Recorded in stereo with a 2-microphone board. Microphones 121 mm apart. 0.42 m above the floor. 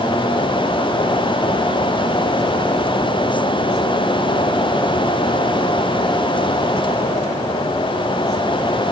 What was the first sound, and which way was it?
Only background noise.